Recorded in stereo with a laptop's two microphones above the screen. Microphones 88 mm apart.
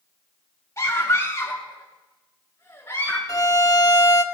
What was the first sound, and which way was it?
A scream, 35° left (ahead or behind).